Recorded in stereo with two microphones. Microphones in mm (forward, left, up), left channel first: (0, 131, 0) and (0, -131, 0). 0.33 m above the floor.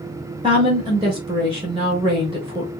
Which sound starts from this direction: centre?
A woman speaking, at 0.4 s.